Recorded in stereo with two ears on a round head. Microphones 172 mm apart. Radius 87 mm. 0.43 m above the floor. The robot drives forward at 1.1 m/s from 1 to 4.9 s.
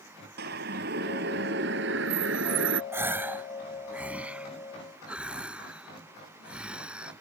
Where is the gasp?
15° right (ahead or behind); by 7.1 s 5° right (ahead or behind).